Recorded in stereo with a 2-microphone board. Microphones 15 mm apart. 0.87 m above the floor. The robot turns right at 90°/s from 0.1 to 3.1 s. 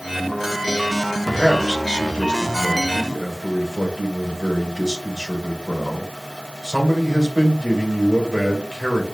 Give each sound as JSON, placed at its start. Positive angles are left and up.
{"t": 1.2, "sound": "a man speaking", "azimuth_deg": 15, "distance_m": 3.5}